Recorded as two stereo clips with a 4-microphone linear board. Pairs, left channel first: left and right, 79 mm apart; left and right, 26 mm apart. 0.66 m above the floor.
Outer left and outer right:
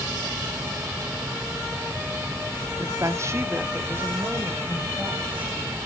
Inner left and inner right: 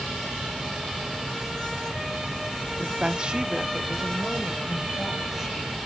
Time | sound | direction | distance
2.8 | a woman speaking | 45° right (ahead or behind) | 0.8 m